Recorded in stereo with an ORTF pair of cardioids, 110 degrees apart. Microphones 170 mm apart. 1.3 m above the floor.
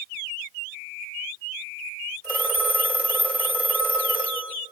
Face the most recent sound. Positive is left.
turn(degrees=-10)